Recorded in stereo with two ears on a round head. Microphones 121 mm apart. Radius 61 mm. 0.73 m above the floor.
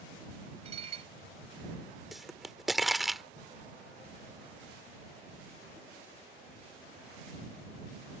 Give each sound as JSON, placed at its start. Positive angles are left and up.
{"t": 0.7, "sound": "dishes clattering", "side_deg": -50}
{"t": 2.1, "sound": "a pop", "side_deg": 0}